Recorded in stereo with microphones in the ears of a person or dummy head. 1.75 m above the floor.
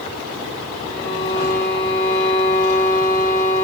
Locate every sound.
0.8 s a violin: 35° left (ahead or behind), 6 m